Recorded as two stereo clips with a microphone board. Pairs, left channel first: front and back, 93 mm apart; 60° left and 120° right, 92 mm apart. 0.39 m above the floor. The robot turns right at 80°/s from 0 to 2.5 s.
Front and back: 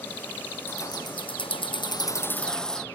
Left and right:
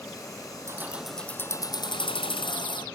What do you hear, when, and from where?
0.7 s keys jangling: 65° right; by 2.9 s 80° left